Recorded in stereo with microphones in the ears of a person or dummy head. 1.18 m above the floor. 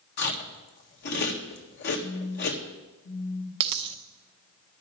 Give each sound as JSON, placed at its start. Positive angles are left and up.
{"t": 0.2, "sound": "chewing", "side_deg": 60, "distance_m": 1.7}
{"t": 2.0, "sound": "a phone buzzing", "side_deg": 70, "distance_m": 2.0}
{"t": 3.6, "sound": "a dropped coin", "side_deg": -30, "distance_m": 0.7}